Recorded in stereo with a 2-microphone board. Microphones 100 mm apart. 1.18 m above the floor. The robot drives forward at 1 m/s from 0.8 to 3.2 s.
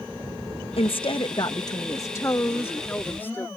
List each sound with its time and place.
0.8 s a woman speaking: 70° left (ahead or behind); by 3.5 s 20° left (ahead or behind)